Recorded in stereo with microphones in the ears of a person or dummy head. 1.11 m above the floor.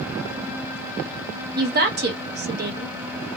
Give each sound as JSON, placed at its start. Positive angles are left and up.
{"t": 1.6, "sound": "a woman speaking", "side_deg": -50, "distance_m": 0.8}